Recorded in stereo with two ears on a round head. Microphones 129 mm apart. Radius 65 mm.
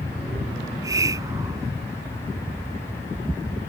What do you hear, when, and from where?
0.6 s a hiss: 25° right (ahead or behind)